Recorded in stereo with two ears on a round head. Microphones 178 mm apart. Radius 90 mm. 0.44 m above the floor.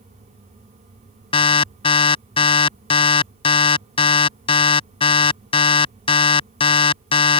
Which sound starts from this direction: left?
An alarm, at 1.3 s.